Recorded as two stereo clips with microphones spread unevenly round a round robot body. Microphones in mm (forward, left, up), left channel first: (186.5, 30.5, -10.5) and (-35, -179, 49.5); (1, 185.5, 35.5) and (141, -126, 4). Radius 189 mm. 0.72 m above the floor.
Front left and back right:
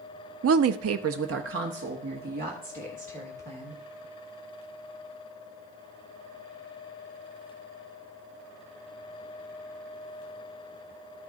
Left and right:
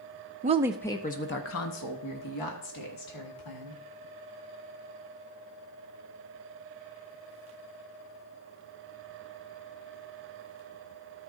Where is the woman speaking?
105° right, 0.5 m; by 3.8 s 150° left, 2 m.